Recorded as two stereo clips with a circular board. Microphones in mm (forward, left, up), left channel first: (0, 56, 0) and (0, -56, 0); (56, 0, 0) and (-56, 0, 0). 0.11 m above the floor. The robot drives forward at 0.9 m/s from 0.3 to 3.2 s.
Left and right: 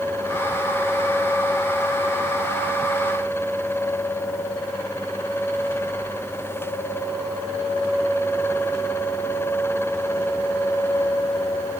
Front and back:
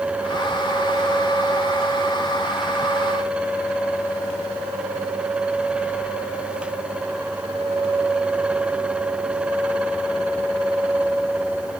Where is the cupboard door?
No cupboard door in this recording.